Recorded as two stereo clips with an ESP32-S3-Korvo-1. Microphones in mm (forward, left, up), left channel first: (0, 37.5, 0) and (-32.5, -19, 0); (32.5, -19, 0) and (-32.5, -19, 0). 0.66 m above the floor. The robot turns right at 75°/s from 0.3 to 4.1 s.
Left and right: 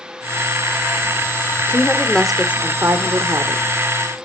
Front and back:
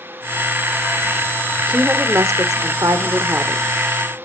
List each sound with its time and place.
1.7 s a woman speaking: 105° left, 1.7 m; by 3.6 s 110° right, 1.7 m